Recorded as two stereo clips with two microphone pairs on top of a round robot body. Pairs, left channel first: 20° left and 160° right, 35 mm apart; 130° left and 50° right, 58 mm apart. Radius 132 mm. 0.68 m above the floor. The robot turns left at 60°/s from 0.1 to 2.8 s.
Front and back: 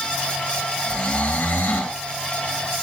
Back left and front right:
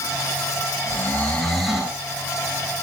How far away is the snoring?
About 7 m.